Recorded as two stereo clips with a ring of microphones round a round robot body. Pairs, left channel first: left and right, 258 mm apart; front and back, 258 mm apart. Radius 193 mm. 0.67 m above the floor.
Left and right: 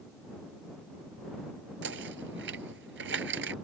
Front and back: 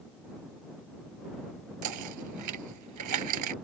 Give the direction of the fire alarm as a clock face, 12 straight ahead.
No fire alarm in this recording.